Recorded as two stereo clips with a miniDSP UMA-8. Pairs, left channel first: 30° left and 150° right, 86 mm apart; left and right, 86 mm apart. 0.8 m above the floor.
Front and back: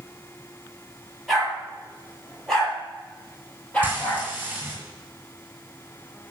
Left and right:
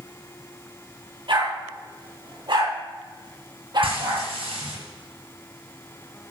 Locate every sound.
1.3 s a dog barking: 60° right, 7.5 m; by 4.3 s 50° right, 9 m
3.8 s frying: 80° right, 6.5 m